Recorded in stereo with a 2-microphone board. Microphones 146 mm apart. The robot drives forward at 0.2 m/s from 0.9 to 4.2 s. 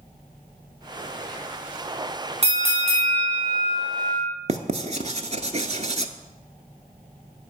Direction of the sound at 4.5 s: 50° right (ahead or behind).